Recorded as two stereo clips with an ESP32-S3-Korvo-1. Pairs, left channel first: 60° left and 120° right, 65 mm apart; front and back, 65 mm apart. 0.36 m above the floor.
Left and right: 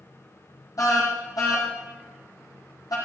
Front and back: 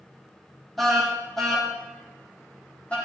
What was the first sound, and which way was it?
A car horn, 90° left.